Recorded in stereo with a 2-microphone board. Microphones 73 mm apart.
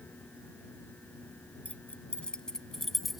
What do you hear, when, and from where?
1.6 s keys jangling: 20° left (ahead or behind); by 3.2 s centre (ahead or behind)